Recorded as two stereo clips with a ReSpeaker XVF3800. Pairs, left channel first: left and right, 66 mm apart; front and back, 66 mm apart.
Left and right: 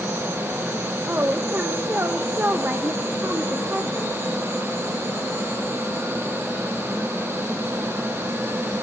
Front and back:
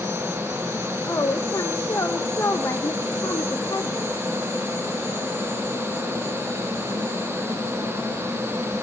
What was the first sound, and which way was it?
A woman speaking, 35° right.